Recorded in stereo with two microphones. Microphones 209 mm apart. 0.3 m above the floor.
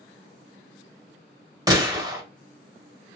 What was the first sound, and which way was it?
A gunshot, 20° right (ahead or behind).